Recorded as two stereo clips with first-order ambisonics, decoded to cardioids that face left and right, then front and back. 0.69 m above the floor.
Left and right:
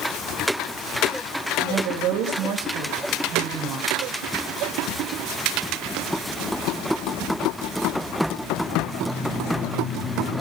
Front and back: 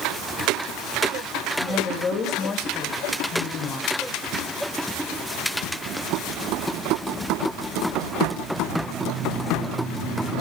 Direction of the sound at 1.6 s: 65° right.